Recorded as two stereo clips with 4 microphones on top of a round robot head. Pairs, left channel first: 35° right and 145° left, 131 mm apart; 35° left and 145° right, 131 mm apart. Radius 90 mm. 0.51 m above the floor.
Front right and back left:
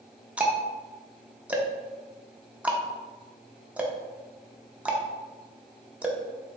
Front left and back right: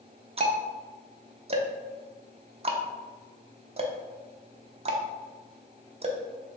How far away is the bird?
I don't hear a bird.